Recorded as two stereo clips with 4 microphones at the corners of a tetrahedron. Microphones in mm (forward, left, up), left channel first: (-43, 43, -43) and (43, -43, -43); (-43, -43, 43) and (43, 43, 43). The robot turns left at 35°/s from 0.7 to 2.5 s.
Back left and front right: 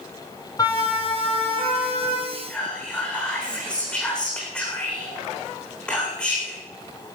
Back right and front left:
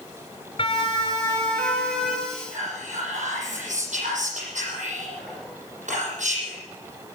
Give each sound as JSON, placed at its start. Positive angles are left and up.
{"t": 0.6, "sound": "a siren", "azimuth_deg": -170, "distance_m": 4.0}
{"t": 2.3, "sound": "whispering", "azimuth_deg": 60, "distance_m": 8.0}